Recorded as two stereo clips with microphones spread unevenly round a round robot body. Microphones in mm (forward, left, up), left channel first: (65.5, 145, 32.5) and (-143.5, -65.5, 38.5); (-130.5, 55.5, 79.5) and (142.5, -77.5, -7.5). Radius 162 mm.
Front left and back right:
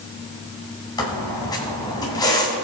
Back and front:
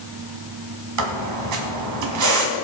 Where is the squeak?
30° right, 1.4 m.